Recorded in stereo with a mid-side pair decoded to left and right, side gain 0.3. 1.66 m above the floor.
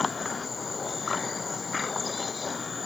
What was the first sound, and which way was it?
Only background noise.